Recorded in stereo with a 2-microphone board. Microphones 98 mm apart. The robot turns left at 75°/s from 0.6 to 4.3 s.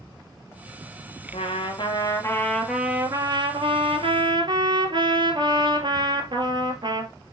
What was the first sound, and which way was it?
A trumpet, 105° left.